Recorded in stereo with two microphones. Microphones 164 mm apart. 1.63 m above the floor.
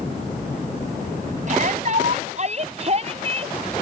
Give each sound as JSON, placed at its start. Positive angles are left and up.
{"t": 1.5, "sound": "a shout", "side_deg": -50}